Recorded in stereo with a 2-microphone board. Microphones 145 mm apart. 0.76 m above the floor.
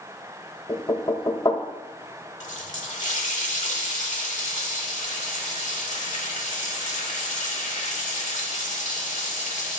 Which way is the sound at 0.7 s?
30° left (ahead or behind).